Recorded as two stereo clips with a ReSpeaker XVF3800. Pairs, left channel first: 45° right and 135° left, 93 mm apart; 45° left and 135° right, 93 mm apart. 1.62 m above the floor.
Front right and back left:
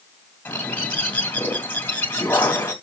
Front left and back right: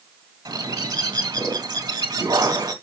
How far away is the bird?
About 2 m.